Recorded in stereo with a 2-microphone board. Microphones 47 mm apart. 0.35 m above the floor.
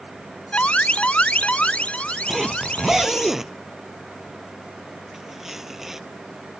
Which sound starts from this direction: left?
An alarm, at 0.5 s.